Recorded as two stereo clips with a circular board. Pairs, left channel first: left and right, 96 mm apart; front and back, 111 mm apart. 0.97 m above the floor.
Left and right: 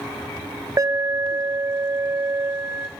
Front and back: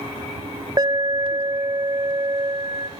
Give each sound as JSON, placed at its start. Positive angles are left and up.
{"t": 0.8, "sound": "an alarm", "azimuth_deg": -140, "distance_m": 0.6}